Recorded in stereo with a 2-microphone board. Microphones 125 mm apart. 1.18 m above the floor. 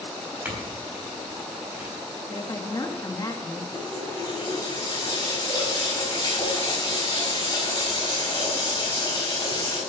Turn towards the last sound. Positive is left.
turn(degrees=35)  # may be behind; listen again after turning